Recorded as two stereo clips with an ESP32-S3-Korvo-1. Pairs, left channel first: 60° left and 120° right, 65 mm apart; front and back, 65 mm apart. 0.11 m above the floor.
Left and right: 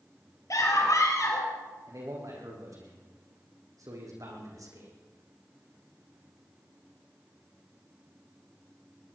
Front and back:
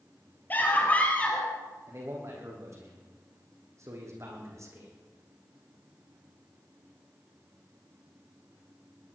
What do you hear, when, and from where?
0.5 s a scream: 55° left, 3 m; by 1.5 s 70° left, 3.5 m
1.9 s a man speaking: 140° right, 5 m